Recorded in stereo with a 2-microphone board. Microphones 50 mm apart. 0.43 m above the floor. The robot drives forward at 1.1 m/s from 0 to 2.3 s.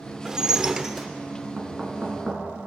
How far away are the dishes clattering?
About 0.5 m.